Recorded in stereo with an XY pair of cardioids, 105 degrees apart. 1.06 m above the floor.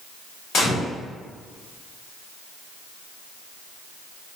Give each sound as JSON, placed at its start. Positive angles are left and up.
{"t": 0.5, "sound": "a gunshot", "azimuth_deg": 70, "distance_m": 1.9}